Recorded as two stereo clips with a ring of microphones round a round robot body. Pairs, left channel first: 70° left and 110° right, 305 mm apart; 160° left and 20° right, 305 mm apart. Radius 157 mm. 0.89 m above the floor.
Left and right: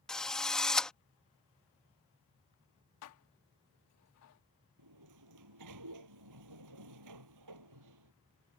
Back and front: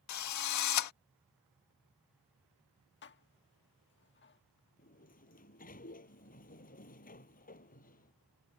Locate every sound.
0.1 s a drill: 155° left
3.0 s dishes clattering: 105° left
4.8 s a sliding door: 140° right